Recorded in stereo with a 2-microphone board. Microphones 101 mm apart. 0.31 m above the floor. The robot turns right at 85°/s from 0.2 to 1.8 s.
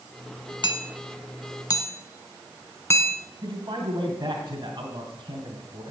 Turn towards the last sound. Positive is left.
turn(degrees=-40)  # may be behind; listen again after turning